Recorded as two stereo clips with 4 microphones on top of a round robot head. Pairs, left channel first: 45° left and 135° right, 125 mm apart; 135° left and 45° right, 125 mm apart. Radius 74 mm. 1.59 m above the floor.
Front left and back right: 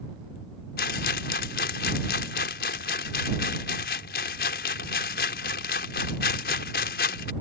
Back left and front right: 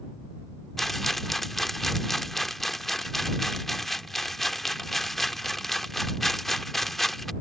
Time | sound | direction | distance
0.8 | a rattle | 50° left | ?